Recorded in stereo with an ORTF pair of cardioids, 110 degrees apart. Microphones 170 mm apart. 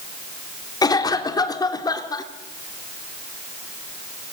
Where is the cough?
25° left, 3.5 m.